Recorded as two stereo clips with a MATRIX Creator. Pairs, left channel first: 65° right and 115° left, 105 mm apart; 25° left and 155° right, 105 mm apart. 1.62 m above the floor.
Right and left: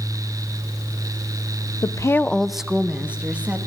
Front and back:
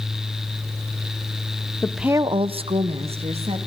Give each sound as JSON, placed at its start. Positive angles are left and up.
{"t": 1.8, "sound": "a woman speaking", "azimuth_deg": -40, "distance_m": 0.6}